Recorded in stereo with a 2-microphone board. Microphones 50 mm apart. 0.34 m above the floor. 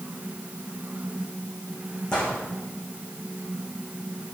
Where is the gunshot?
20° left (ahead or behind), 4.5 m.